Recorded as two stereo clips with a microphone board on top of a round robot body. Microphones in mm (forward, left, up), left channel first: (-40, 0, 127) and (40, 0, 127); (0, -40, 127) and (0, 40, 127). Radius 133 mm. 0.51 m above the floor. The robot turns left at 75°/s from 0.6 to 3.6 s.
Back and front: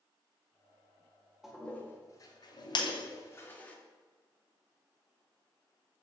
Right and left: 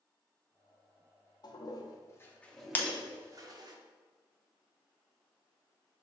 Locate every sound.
1.4 s a toilet flushing: 85° right, 0.8 m; by 3.8 s 110° left, 0.8 m
2.8 s breaking glass: 155° right, 0.8 m; by 3.0 s 175° right, 0.8 m